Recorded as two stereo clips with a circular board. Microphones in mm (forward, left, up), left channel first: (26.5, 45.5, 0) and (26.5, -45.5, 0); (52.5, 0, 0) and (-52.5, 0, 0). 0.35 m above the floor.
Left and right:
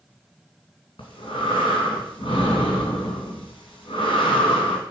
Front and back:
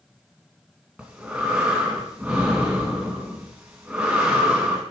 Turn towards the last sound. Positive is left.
turn(degrees=100)